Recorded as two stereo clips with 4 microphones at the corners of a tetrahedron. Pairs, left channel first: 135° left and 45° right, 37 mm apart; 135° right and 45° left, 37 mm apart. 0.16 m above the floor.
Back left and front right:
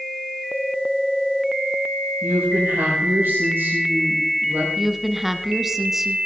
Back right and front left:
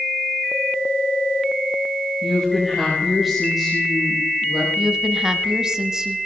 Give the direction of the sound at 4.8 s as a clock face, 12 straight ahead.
11 o'clock.